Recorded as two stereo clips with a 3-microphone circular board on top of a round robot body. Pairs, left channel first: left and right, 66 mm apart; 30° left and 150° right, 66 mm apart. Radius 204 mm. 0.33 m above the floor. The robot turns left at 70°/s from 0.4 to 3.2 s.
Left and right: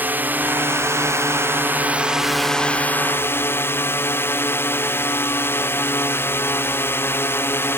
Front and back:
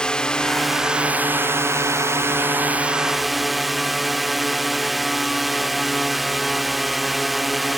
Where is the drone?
40° right; by 7.8 s 120° left.